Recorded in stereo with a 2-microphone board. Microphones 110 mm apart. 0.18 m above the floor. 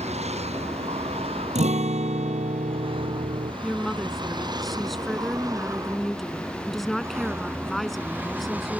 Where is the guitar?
80° right.